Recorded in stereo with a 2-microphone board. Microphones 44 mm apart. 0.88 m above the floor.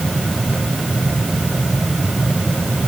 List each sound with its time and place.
Only background noise.